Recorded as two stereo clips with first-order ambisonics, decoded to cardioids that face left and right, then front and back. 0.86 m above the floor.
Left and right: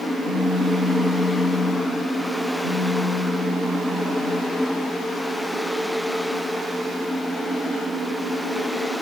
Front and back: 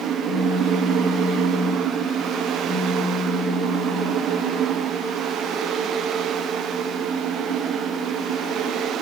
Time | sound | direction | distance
0.2 | a phone buzzing | 95° left | 6.5 m